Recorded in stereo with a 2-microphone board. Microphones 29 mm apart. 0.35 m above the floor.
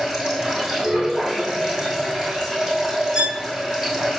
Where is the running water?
15° right (ahead or behind), 3.5 m.